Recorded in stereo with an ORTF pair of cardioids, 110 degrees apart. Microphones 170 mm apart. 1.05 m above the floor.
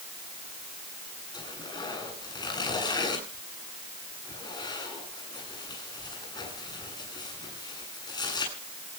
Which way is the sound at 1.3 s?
25° left.